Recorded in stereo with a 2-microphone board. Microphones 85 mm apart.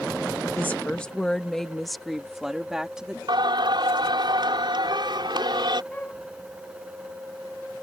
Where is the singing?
65° right (ahead or behind).